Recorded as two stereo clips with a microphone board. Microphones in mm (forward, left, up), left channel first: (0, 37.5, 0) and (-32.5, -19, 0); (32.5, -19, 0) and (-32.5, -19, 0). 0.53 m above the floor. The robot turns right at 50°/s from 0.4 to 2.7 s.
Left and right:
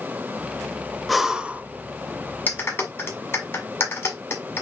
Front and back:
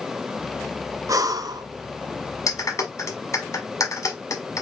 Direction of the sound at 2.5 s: 5° left.